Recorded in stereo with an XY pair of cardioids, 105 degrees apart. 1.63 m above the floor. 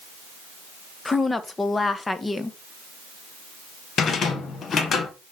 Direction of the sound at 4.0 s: 55° left.